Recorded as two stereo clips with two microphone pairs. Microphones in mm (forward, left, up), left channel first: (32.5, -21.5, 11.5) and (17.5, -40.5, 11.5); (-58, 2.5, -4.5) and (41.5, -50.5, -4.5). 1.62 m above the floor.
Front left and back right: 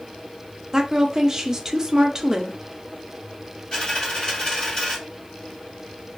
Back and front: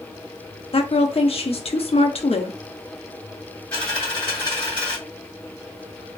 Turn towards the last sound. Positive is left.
turn(degrees=80)